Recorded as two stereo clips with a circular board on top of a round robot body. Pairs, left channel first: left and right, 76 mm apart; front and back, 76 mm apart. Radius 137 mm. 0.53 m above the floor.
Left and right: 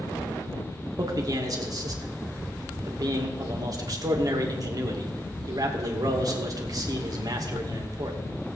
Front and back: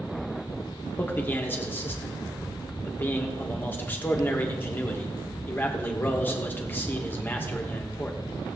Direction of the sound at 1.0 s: 60° right.